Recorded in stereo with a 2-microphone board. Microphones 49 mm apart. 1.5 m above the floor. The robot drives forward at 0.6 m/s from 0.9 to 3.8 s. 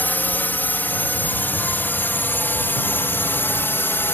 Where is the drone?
40° left (ahead or behind); by 4.1 s 50° left (ahead or behind).